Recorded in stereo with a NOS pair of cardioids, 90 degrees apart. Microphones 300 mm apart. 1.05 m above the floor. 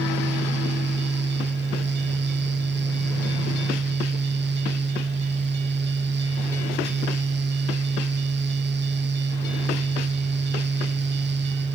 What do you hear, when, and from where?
0.0 s a fan: 40° right, 1.0 m